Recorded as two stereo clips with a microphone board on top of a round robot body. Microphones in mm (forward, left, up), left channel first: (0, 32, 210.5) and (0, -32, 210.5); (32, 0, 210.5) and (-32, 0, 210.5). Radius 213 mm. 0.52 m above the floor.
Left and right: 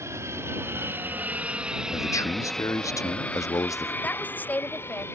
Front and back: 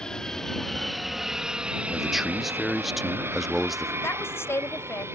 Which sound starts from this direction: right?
An aircraft, at 0.0 s.